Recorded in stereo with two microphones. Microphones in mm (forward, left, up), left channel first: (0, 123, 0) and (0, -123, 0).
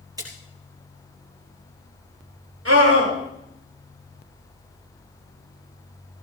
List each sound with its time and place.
0.2 s a splash: 15° right (ahead or behind), 4.5 m
2.6 s a scream: 65° right (ahead or behind), 9.5 m